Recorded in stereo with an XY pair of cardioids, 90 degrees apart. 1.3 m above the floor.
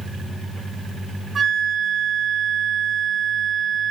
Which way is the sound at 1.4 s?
40° right.